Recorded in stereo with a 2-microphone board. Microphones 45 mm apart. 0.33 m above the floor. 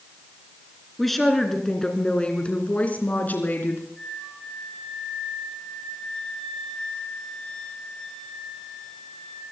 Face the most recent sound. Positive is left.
turn(degrees=10)  # may be behind; listen again after turning